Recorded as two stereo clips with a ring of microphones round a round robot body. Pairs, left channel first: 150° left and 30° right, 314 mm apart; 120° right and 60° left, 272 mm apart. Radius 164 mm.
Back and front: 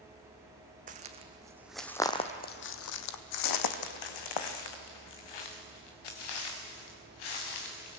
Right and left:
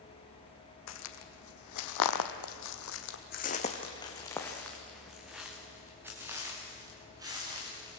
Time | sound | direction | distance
0.9 | footsteps | 95° right | 1.6 m